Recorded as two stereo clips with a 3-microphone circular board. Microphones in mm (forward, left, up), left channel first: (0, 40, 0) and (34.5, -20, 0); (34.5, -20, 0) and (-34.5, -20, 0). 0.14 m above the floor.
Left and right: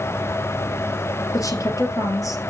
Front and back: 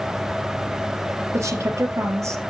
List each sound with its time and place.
1.3 s a woman speaking: 145° left, 2.5 m